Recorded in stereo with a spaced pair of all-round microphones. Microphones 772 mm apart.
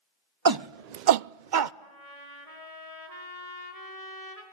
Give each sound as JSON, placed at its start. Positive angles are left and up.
{"t": 0.5, "sound": "a shout", "side_deg": -30, "distance_m": 0.6}
{"t": 1.8, "sound": "a trumpet", "side_deg": -50, "distance_m": 5.0}